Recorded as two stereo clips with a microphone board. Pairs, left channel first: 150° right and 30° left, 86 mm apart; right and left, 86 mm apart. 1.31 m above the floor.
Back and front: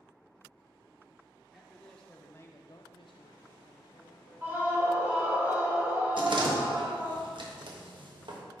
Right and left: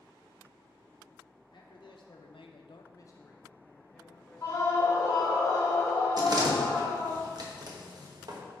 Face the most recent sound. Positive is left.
turn(degrees=50)